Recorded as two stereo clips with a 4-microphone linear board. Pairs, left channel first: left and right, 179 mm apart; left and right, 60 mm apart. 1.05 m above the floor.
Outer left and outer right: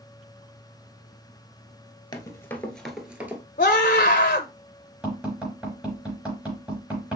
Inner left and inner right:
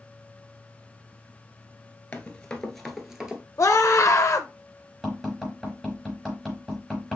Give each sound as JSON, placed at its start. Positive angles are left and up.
{"t": 2.1, "sound": "running footsteps", "side_deg": 25, "distance_m": 1.1}
{"t": 3.6, "sound": "a scream", "side_deg": 50, "distance_m": 0.6}
{"t": 5.0, "sound": "tapping", "side_deg": -5, "distance_m": 4.0}